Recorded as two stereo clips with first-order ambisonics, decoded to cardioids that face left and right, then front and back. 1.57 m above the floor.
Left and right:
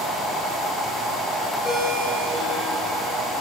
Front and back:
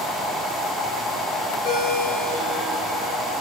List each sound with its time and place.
1.6 s a ringtone: 5° left, 3 m